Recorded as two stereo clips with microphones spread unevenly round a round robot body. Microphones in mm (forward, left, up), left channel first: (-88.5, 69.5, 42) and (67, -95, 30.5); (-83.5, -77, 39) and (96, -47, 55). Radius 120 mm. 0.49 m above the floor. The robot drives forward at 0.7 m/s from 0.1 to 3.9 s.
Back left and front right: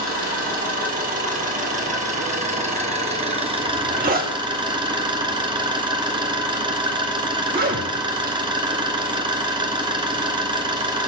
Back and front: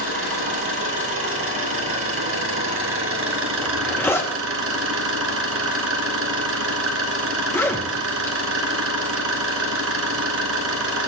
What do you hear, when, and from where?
0.0 s an engine running: 10° left, 4 m; by 11.1 s 25° left, 1.6 m
3.6 s a zipper: 90° right, 2 m; by 8.4 s 95° right, 2 m